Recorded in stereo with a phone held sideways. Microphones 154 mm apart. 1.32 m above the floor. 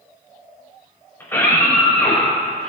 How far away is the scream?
About 5.5 m.